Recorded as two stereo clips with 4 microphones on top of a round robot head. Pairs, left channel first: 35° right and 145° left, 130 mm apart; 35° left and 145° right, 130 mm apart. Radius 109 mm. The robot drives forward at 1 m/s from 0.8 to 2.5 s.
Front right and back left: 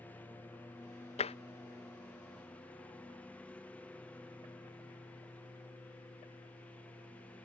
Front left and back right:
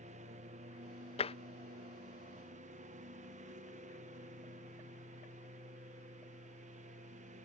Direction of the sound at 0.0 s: 110° right.